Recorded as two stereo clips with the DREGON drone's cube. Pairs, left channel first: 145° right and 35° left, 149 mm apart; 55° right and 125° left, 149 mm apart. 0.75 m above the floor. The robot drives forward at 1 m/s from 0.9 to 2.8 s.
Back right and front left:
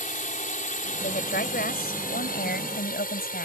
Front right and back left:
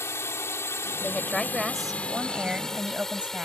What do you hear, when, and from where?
0.0 s a drone: 130° right; by 3.5 s 145° right
1.0 s a woman speaking: 140° right; by 3.5 s 155° right